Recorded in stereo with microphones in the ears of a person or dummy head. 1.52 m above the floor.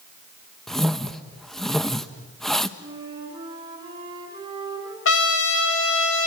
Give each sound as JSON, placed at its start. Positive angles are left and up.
{"t": 0.7, "sound": "a whoosh", "side_deg": 5, "distance_m": 1.0}
{"t": 2.8, "sound": "a flute", "side_deg": -25, "distance_m": 5.5}
{"t": 5.0, "sound": "a trumpet", "side_deg": 85, "distance_m": 2.0}